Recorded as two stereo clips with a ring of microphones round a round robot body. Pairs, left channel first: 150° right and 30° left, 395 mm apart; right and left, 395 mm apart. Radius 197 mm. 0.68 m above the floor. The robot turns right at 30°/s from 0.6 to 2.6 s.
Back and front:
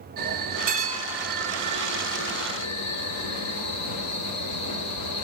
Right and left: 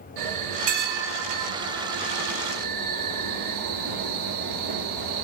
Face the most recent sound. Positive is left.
turn(degrees=160)